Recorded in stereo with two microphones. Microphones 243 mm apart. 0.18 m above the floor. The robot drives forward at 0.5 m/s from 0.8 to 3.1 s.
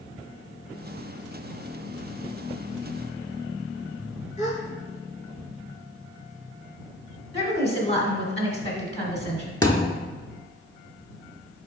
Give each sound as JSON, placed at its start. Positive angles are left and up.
{"t": 4.4, "sound": "a gasp", "side_deg": 30, "distance_m": 1.0}
{"t": 7.3, "sound": "a woman speaking", "side_deg": 25, "distance_m": 1.2}
{"t": 9.6, "sound": "a thud", "side_deg": 15, "distance_m": 0.6}